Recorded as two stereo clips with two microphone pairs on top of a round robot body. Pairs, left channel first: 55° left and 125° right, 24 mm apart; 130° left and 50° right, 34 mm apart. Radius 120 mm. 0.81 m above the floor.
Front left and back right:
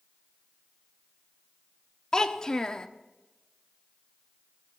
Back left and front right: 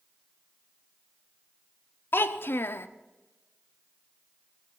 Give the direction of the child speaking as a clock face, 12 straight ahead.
8 o'clock.